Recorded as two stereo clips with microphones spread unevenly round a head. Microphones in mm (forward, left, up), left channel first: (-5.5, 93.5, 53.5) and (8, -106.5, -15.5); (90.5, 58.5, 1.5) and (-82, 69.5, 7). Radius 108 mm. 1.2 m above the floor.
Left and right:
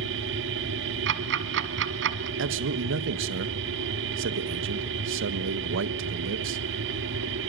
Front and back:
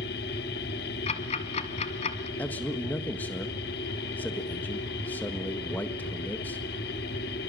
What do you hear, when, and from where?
0.0 s a machine running: 50° right, 1.4 m
1.1 s ticking: 50° right, 1.5 m
2.4 s a man speaking: 85° right, 1.5 m